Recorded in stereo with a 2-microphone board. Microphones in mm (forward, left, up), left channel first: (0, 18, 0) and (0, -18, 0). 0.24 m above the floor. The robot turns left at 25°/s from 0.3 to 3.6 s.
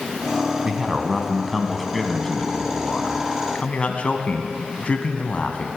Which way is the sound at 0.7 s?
155° right.